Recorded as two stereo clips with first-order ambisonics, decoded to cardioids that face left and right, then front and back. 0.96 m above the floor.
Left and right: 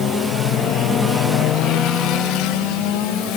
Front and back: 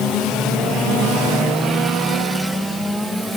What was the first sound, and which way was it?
Only background noise.